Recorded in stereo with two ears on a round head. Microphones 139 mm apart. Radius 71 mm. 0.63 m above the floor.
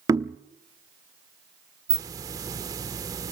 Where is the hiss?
20° right (ahead or behind), 0.9 m.